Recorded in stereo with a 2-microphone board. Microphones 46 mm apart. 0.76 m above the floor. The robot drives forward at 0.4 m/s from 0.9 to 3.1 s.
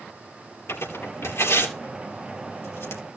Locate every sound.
0.7 s tearing paper: 80° left, 3.5 m; by 3.0 s 70° left (ahead or behind), 4 m